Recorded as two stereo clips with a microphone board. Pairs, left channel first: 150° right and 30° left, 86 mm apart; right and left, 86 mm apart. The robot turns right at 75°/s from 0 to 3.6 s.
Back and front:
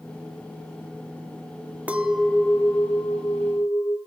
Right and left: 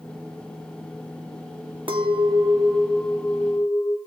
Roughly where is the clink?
Left.